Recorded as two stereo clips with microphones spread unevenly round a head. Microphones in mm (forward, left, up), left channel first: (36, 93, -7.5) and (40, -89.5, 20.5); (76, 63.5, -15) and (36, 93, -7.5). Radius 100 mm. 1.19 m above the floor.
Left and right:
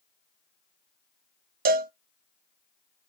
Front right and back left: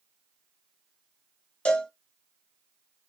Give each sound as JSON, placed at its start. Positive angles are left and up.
{"t": 1.6, "sound": "a cowbell", "azimuth_deg": -80, "distance_m": 0.6}